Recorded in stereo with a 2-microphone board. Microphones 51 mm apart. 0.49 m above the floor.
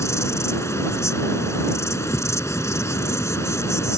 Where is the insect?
75° left (ahead or behind).